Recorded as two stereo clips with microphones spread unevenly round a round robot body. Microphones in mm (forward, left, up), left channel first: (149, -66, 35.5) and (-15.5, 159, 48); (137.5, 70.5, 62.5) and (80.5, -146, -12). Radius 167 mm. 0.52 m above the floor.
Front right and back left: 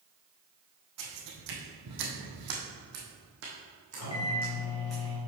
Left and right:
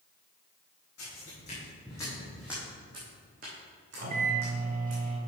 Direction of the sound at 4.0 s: 75° right.